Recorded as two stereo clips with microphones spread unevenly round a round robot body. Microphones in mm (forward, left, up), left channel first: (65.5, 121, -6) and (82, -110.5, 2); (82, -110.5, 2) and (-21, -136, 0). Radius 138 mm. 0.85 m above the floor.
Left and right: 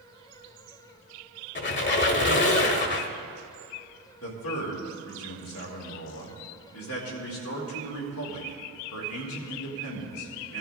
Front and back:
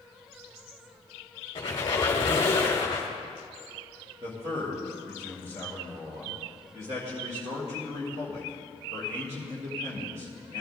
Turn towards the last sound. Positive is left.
turn(degrees=135)